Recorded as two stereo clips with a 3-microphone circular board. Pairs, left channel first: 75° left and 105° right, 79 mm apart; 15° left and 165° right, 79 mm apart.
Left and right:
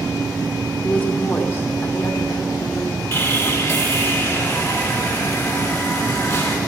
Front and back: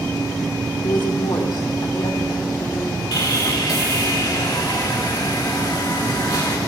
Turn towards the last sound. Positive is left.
turn(degrees=25)